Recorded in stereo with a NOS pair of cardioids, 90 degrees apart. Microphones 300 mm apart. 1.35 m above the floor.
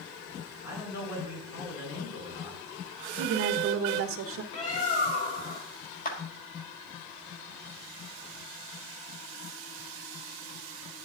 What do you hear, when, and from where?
0.6 s a man speaking: 60° left, 4.5 m
3.2 s a woman speaking: 45° right, 0.7 m
4.5 s a bird: 50° left, 1.4 m
6.0 s a clap: 30° left, 1.5 m